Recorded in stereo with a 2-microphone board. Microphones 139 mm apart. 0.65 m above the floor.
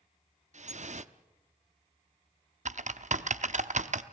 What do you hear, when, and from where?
0.5 s dripping: 55° right (ahead or behind), 0.6 m
2.6 s typing on a keyboard: 60° right (ahead or behind), 0.7 m